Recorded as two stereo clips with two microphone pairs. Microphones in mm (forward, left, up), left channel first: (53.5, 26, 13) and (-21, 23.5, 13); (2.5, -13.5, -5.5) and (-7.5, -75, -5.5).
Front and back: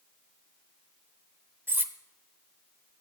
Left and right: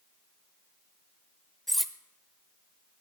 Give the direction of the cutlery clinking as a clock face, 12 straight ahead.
6 o'clock.